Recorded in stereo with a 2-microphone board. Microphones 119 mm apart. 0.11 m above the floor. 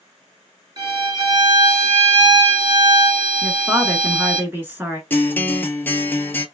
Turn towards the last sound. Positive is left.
turn(degrees=15)  # may be behind; listen again after turning